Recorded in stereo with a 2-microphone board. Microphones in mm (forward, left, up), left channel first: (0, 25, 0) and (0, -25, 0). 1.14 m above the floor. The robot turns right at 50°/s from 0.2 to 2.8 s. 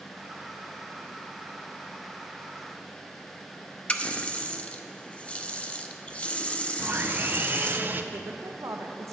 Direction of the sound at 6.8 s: 40° right (ahead or behind).